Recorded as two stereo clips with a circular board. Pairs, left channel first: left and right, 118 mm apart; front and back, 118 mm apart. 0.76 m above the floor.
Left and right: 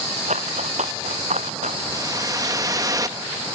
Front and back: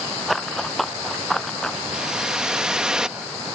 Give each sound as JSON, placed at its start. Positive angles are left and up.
{"t": 0.3, "sound": "running footsteps", "azimuth_deg": -90}
{"t": 1.9, "sound": "a whoosh", "azimuth_deg": -105}